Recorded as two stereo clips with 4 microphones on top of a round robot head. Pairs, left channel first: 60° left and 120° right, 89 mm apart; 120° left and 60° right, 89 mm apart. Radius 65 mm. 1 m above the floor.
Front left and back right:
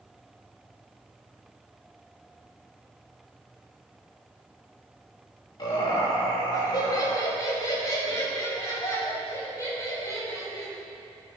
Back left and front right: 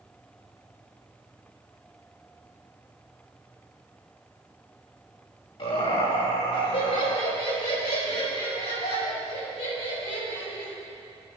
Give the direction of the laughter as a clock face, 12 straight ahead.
9 o'clock.